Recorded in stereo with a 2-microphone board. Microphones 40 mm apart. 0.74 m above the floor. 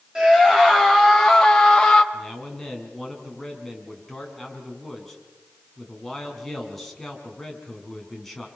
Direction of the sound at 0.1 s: 15° right (ahead or behind).